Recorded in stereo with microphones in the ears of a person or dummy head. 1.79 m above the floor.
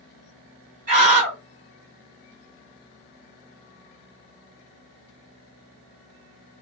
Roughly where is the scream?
Right.